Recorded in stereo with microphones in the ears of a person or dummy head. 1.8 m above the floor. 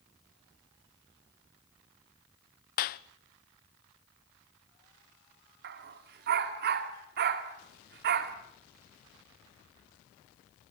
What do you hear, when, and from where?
2.8 s a clap: 45° left (ahead or behind), 0.8 m
5.6 s a dog barking: 50° right (ahead or behind), 2 m